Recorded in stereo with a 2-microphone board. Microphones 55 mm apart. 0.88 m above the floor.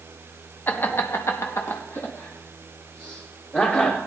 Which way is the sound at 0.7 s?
35° left (ahead or behind).